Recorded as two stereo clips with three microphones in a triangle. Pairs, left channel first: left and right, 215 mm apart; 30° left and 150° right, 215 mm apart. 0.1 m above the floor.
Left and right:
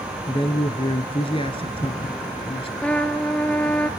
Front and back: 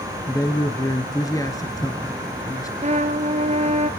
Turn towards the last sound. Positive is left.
turn(degrees=175)